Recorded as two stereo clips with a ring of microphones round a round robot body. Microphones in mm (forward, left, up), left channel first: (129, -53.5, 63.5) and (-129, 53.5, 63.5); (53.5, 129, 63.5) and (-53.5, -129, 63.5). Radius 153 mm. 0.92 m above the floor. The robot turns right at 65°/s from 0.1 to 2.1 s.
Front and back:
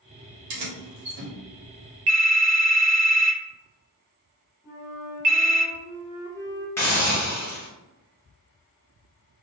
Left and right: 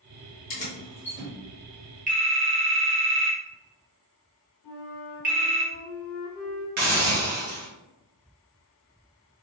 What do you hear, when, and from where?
0.5 s keys jangling: 125° left, 0.8 m; by 1.3 s straight behind, 0.8 m
2.1 s a phone ringing: 175° right, 0.7 m
4.6 s a flute: 80° left, 1.3 m
6.8 s a hiss: 100° right, 0.6 m